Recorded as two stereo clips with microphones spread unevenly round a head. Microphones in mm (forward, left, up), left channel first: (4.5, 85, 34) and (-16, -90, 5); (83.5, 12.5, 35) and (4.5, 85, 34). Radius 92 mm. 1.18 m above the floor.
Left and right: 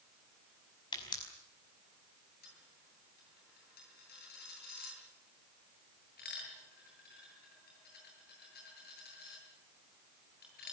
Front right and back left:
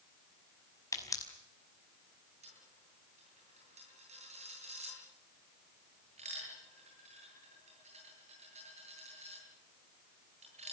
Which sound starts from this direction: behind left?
A dropped coin, at 2.4 s.